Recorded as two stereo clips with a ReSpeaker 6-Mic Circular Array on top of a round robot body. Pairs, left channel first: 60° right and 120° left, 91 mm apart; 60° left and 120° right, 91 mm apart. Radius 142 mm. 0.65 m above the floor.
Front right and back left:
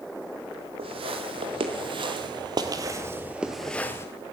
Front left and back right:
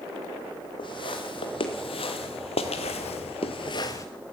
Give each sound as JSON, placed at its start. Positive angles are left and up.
{"t": 0.8, "sound": "footsteps", "azimuth_deg": 95, "distance_m": 2.0}